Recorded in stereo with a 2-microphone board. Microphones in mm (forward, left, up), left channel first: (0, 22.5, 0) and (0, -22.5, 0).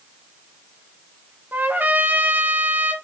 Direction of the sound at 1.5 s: 45° right (ahead or behind).